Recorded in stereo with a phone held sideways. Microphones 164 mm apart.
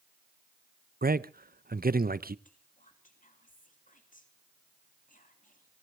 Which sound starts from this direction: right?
A man speaking, at 1.0 s.